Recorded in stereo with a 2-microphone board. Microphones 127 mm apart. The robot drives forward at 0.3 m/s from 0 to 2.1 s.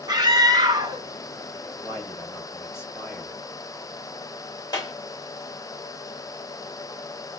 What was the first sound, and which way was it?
A scream, 35° right (ahead or behind).